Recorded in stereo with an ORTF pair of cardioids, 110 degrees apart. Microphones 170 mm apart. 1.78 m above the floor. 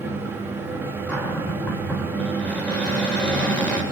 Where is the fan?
15° right, 4 m.